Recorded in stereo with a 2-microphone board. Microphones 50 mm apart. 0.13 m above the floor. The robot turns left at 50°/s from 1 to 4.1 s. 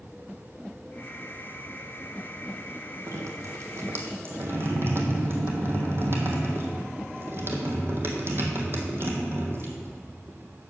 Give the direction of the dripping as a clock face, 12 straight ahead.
3 o'clock.